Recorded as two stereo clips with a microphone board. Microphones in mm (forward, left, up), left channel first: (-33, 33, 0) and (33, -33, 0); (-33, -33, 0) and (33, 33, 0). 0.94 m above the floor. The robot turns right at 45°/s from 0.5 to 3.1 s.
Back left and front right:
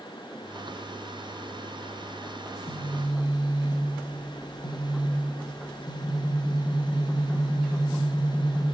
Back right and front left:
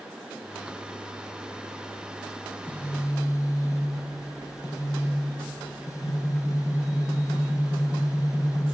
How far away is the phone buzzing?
About 1.0 m.